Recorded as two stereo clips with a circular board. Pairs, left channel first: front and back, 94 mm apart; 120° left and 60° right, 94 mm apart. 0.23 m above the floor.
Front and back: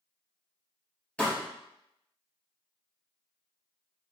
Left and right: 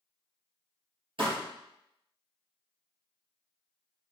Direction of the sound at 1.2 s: 75° right.